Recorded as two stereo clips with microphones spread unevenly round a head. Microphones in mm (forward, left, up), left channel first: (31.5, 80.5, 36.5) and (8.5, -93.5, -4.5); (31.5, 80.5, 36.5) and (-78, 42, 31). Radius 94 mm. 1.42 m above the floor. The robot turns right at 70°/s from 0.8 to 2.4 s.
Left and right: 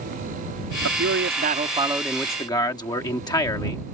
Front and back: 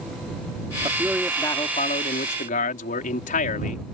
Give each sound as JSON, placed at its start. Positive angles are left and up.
{"t": 0.8, "sound": "a man speaking", "azimuth_deg": -95}